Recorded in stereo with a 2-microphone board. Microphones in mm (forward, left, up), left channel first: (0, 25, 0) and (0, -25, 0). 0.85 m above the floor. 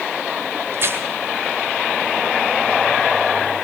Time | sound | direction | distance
0.7 | tearing paper | 55° right (ahead or behind) | 2 m